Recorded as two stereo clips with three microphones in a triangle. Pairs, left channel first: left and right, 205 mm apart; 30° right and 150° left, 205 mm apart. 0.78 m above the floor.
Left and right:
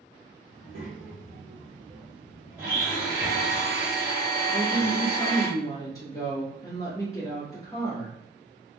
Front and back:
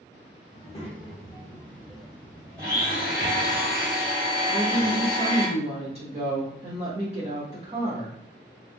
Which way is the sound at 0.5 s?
85° right.